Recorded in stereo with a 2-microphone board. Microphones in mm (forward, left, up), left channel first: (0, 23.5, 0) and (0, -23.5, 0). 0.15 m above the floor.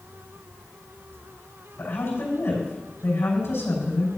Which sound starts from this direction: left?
A woman speaking, at 1.8 s.